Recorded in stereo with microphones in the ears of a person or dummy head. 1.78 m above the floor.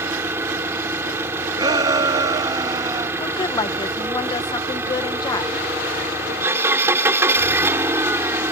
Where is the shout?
20° right (ahead or behind).